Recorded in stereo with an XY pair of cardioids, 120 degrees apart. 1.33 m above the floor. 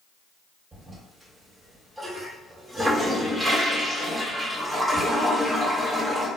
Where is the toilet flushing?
10° right, 2.0 m.